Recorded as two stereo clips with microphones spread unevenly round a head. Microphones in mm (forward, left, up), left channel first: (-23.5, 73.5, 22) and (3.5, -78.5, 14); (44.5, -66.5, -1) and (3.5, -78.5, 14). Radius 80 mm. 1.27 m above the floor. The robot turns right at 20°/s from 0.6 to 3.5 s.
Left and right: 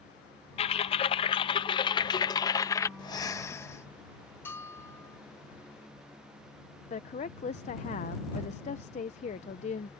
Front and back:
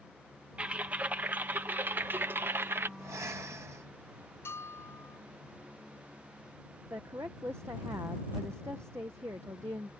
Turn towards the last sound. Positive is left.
turn(degrees=140)